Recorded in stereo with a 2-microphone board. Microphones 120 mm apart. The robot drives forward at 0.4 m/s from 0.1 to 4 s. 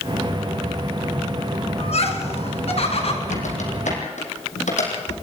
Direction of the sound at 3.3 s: 85° left.